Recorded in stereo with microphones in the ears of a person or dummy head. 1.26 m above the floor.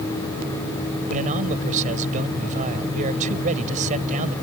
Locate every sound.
1.1 s a man speaking: 45° right (ahead or behind)